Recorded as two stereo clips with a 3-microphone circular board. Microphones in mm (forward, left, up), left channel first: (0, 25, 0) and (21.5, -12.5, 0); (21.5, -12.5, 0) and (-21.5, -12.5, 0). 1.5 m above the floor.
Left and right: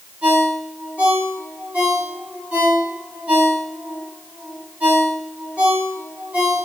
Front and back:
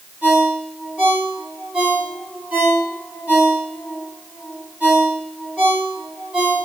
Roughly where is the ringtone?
Behind right.